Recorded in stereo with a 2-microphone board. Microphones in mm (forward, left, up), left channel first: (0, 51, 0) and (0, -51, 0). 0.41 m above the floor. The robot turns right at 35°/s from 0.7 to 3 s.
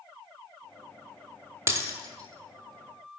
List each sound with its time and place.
1.7 s breaking glass: 30° right (ahead or behind), 0.6 m; by 3.1 s 55° right (ahead or behind), 0.6 m